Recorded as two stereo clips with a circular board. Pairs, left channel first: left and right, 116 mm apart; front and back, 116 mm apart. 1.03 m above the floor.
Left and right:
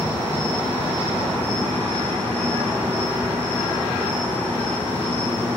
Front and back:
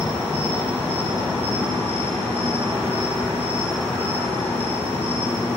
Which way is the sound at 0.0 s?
15° left.